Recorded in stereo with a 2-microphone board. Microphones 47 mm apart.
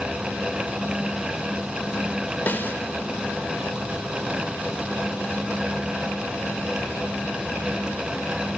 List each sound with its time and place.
2.5 s a snare drum: 45° left (ahead or behind), 2 m